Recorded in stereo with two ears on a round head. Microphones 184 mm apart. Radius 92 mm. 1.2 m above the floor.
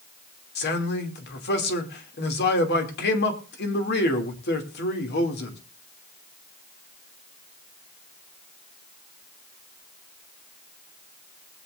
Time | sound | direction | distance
0.6 | a man speaking | 55° left (ahead or behind) | 3 m